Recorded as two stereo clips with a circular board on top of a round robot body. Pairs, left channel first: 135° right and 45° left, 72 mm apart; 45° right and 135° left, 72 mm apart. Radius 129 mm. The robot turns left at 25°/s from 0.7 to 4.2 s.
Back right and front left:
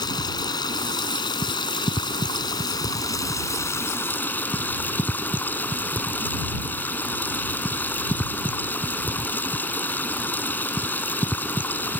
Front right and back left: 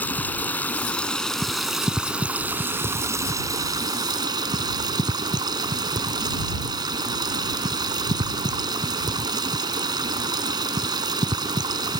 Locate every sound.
0.0 s running water: 115° right; by 12.0 s 160° left